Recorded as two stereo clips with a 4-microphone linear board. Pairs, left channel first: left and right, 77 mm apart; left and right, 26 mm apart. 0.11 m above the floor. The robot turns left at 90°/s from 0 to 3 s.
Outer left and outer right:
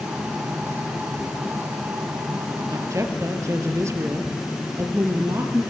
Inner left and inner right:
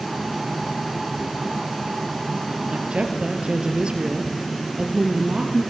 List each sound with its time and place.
2.7 s a woman speaking: 50° right (ahead or behind), 2.5 m; by 5.6 s 40° right (ahead or behind), 2.5 m